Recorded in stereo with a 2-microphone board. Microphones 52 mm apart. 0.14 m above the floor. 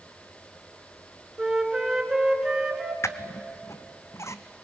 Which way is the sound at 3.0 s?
65° left (ahead or behind).